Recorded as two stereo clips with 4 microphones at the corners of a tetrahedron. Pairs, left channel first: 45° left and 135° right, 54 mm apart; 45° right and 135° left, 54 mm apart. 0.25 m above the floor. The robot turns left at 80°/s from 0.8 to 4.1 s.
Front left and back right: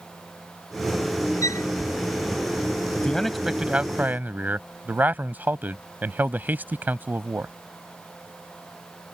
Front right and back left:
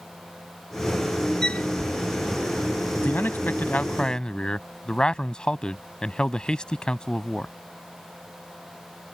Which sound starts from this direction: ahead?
A man speaking, at 3.0 s.